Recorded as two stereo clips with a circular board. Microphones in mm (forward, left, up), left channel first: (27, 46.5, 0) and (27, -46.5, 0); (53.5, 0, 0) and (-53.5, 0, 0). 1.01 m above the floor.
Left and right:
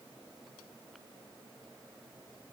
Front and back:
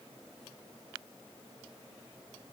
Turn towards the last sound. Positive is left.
No sound to turn to.